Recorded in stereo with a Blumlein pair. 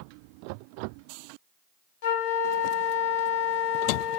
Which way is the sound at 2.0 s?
50° left.